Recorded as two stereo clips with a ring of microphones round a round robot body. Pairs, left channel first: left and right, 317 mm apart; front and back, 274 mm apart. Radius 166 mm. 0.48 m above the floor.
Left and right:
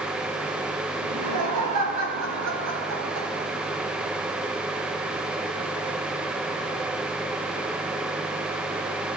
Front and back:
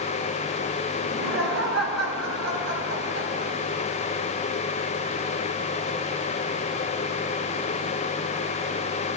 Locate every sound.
1.0 s laughter: 120° right, 5 m; by 3.5 s 130° right, 3.5 m